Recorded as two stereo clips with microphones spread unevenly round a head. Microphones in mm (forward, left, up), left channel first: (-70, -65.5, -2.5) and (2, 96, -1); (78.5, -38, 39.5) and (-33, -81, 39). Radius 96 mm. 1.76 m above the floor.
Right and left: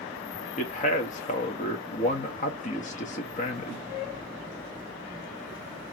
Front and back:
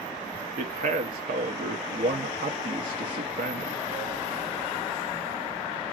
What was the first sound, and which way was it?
A man speaking, 160° right.